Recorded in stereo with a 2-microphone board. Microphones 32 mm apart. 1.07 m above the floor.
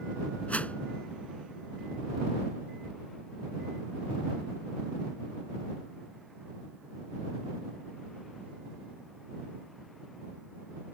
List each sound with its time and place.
0.5 s a whoosh: 50° left (ahead or behind)